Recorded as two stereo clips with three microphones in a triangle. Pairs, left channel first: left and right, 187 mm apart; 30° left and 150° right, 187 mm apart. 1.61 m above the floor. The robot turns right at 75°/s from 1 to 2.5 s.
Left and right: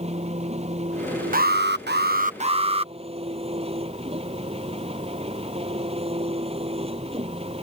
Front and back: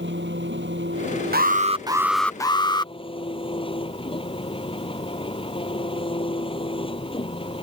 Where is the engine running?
145° right; by 7.6 s 30° right.